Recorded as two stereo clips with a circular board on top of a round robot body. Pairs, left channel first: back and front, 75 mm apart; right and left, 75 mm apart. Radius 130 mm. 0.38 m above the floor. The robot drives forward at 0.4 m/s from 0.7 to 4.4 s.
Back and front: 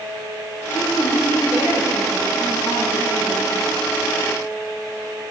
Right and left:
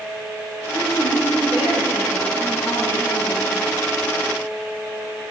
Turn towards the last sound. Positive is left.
turn(degrees=155)